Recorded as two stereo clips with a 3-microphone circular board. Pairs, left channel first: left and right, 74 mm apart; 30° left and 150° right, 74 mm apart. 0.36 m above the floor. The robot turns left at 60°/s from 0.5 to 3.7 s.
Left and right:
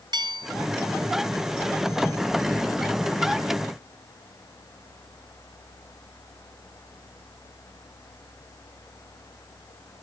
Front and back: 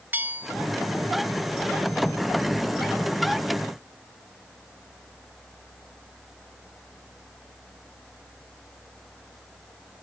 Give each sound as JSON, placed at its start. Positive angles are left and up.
{"t": 0.1, "sound": "a bell", "azimuth_deg": -85}